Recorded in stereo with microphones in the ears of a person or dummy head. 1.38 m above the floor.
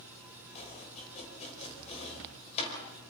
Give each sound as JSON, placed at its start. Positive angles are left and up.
{"t": 0.6, "sound": "chopping", "side_deg": 45, "distance_m": 5.5}